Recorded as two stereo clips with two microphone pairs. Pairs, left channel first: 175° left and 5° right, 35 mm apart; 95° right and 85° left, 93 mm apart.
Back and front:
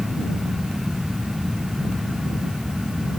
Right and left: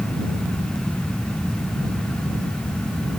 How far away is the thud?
I don't hear a thud.